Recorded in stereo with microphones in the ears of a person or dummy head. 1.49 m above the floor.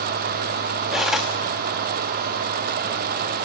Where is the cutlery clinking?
Centre (ahead or behind), 1.2 m.